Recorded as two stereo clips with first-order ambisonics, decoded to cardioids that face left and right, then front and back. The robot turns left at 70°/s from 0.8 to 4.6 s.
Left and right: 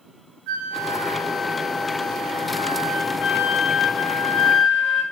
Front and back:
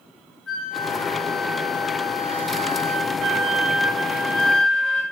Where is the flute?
70° right, 3.5 m; by 5.0 s 25° left, 3.5 m.